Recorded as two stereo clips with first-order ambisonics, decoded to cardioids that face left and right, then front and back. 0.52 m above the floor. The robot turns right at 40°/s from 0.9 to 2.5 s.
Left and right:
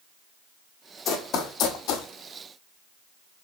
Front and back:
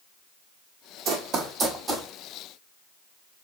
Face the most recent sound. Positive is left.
turn(degrees=115)